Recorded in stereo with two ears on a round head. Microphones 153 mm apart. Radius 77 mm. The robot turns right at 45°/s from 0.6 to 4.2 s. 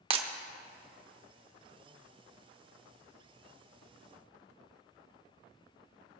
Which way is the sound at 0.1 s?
35° right (ahead or behind).